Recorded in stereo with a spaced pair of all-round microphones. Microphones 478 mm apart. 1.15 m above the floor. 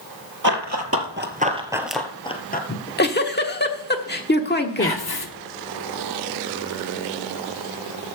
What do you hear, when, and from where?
0.4 s running footsteps: 40° right (ahead or behind), 1.7 m; by 2.6 s 20° left (ahead or behind), 1.4 m
2.7 s a giggle: 20° left (ahead or behind), 1.1 m
4.8 s whispering: 50° left (ahead or behind), 1.7 m